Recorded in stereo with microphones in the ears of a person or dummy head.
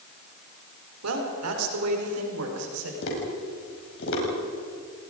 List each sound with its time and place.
1.0 s a woman speaking: 90° right, 4 m; by 2.9 s 85° right, 5.5 m
3.0 s tapping: 65° left (ahead or behind), 6 m